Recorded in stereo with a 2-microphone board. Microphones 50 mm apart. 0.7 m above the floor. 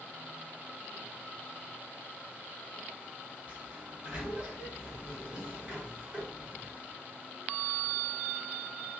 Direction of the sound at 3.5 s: 20° right (ahead or behind).